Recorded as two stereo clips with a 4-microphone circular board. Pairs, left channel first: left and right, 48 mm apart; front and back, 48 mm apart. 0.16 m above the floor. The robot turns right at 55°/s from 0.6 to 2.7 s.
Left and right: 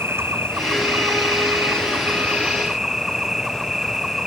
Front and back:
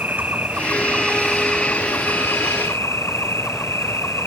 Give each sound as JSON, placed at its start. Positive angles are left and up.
{"t": 0.0, "sound": "an insect", "azimuth_deg": -125}